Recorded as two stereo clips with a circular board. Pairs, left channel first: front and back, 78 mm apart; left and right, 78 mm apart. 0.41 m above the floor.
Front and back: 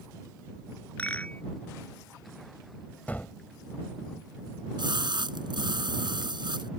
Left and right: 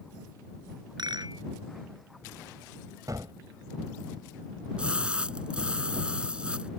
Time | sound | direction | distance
1.0 | a rattle | 70° right | ?
3.1 | a gunshot | 65° right | ?
4.8 | a splash | 165° right | ?